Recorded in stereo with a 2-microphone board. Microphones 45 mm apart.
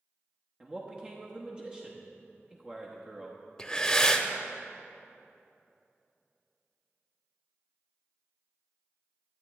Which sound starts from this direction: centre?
Breathing, at 3.6 s.